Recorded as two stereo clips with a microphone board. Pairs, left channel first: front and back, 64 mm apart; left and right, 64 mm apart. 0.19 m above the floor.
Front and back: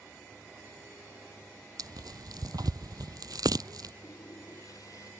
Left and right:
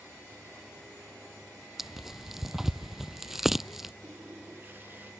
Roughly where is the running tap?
Ahead right.